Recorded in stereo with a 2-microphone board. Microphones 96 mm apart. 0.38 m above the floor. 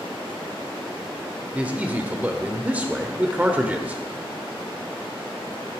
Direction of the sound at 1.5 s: 15° right (ahead or behind).